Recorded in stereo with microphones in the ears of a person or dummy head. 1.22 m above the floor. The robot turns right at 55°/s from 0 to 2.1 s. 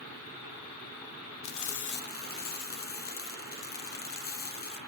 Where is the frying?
95° left, 0.8 m; by 4.8 s 135° left, 0.8 m.